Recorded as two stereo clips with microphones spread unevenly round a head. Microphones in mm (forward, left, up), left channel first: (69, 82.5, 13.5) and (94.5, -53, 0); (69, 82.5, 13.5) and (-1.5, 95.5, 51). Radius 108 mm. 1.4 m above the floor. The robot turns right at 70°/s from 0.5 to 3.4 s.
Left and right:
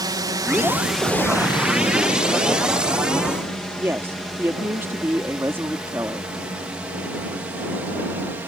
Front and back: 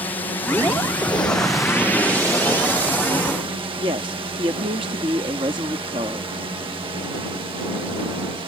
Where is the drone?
25° right; by 8.5 s 160° right.